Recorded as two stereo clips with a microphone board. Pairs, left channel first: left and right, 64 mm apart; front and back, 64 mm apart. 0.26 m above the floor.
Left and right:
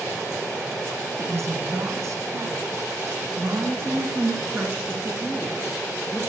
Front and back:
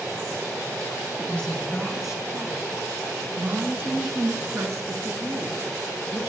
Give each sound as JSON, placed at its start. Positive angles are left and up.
{"t": 1.2, "sound": "a woman speaking", "azimuth_deg": -70, "distance_m": 2.5}